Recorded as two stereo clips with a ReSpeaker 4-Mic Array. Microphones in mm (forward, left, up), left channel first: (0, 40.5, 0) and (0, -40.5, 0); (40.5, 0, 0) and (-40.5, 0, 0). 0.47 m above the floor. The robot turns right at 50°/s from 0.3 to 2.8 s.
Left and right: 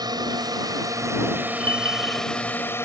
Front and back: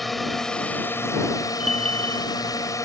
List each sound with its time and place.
0.0 s a drone: 90° right; by 2.9 s 35° left
1.6 s a bell: 90° right; by 2.3 s 55° right